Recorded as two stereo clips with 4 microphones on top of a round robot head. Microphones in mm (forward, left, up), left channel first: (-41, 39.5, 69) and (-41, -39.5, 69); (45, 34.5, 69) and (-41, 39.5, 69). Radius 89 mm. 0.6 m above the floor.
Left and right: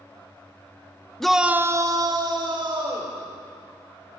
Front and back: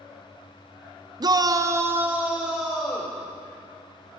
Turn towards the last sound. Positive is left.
turn(degrees=-95)